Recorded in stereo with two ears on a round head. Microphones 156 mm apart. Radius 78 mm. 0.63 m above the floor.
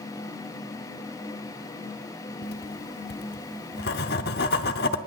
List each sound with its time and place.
2.4 s writing: 60° left (ahead or behind), 0.8 m